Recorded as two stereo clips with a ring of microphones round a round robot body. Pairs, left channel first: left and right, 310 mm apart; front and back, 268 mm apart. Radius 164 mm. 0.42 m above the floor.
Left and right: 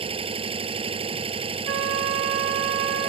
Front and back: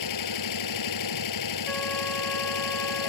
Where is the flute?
85° right.